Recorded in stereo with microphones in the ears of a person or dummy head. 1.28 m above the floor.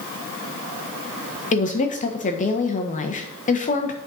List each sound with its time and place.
1.5 s a woman speaking: 40° left (ahead or behind), 1.0 m